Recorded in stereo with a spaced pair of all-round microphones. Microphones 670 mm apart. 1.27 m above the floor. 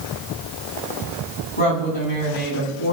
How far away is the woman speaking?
About 9.5 m.